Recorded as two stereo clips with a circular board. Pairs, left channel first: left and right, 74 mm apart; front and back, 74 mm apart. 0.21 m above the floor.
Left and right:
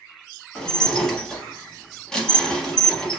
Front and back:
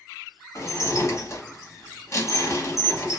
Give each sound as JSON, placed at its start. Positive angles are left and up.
{"t": 0.6, "sound": "dishes clattering", "azimuth_deg": 15, "distance_m": 0.9}